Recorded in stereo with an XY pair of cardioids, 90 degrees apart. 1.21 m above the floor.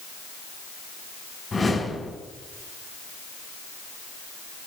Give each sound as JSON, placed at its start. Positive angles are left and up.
{"t": 1.5, "sound": "a whoosh", "azimuth_deg": 30, "distance_m": 4.5}